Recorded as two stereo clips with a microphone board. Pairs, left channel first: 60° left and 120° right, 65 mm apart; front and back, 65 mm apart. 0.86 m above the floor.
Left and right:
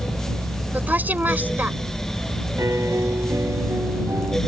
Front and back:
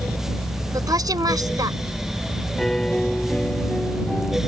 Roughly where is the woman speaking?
Behind.